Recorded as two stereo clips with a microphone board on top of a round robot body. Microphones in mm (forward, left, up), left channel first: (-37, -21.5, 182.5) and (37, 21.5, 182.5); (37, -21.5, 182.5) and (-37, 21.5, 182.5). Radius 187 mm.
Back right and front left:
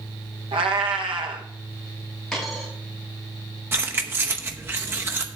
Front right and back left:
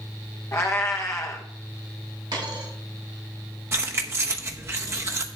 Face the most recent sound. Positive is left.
turn(degrees=90)